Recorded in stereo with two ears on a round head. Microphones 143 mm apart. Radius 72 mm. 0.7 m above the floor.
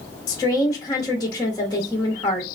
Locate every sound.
0.3 s a woman speaking: 25° left (ahead or behind), 0.7 m